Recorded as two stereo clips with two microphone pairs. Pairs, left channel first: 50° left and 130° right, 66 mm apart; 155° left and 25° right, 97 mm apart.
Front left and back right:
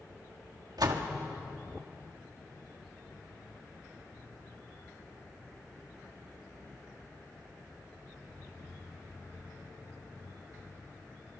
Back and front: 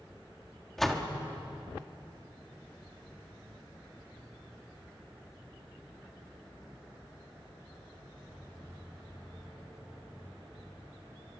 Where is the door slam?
120° right, 2 m.